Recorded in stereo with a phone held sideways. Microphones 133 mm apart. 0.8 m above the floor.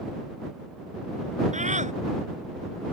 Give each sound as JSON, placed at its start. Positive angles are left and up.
{"t": 1.5, "sound": "a scream", "side_deg": -65}